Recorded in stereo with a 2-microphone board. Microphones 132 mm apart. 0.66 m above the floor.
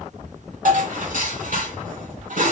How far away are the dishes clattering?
About 1.6 m.